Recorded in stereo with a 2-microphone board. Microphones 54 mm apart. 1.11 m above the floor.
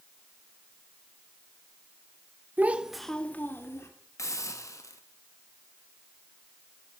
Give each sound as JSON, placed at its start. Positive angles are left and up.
{"t": 2.6, "sound": "a child speaking", "side_deg": -35, "distance_m": 1.2}
{"t": 4.2, "sound": "a hiss", "side_deg": 85, "distance_m": 1.3}